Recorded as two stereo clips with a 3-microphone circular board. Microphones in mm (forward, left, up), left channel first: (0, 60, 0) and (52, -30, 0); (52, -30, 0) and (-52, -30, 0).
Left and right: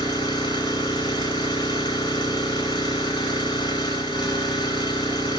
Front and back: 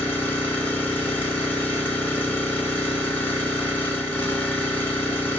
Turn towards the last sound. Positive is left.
turn(degrees=75)